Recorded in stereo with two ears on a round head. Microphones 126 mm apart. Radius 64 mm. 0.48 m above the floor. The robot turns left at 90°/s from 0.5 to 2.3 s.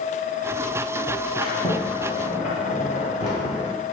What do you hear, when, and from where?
1.4 s a sliding door: 165° right, 2.5 m; by 3.7 s 115° left, 2.5 m